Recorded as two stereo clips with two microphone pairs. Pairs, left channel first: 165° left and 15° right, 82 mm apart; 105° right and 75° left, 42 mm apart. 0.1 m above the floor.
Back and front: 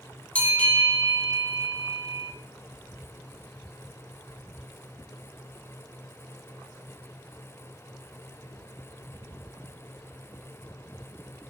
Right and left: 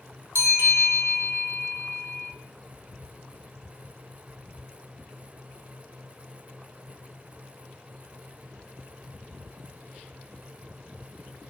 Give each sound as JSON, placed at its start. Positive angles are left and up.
{"t": 0.3, "sound": "a bell", "azimuth_deg": 90, "distance_m": 0.8}